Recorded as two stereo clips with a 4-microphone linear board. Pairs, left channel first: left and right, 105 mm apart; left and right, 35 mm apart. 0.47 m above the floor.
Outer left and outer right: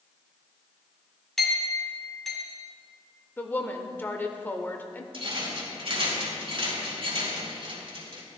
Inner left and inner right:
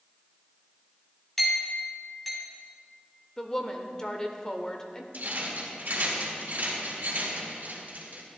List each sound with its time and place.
1.4 s a clink: centre (ahead or behind), 2.5 m
3.4 s a woman speaking: 20° left (ahead or behind), 1.1 m
5.1 s a rattle: 55° right (ahead or behind), 3 m